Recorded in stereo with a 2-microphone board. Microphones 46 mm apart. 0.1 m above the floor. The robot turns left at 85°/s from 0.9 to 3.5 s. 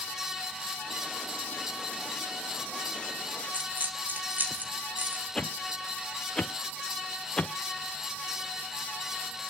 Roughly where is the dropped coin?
Right.